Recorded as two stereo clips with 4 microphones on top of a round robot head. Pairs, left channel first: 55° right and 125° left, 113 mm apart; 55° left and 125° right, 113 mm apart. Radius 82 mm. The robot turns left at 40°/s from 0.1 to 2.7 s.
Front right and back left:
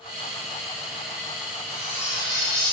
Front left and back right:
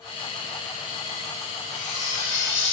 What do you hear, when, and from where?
1.7 s cutlery clinking: 60° left, 3 m; by 2.7 s 20° left, 3 m